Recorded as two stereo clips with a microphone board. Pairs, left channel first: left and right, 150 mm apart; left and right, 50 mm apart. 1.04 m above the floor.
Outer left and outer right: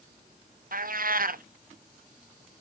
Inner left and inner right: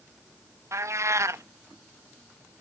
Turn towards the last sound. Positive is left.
turn(degrees=-70)  # may be behind; listen again after turning